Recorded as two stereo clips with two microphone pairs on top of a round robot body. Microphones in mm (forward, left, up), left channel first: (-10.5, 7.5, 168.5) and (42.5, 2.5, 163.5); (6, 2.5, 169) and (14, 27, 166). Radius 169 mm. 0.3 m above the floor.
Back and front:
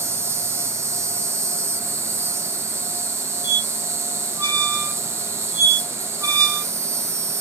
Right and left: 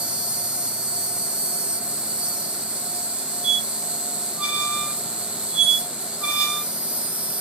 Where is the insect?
30° left, 0.8 m.